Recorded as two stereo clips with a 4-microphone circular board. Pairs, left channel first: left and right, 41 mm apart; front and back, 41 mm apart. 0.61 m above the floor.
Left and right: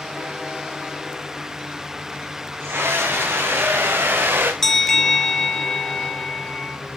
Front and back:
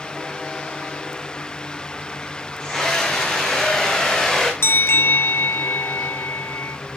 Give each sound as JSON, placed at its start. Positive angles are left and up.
{"t": 2.6, "sound": "a scream", "azimuth_deg": -70, "distance_m": 4.0}
{"t": 4.6, "sound": "a bell", "azimuth_deg": 10, "distance_m": 1.3}